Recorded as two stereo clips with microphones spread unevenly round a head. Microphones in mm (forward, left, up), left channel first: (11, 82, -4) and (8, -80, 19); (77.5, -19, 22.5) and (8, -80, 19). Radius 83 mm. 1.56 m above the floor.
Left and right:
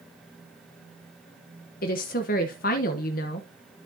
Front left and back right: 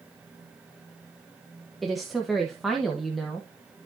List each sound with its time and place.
1.8 s a woman speaking: 130° left, 1.0 m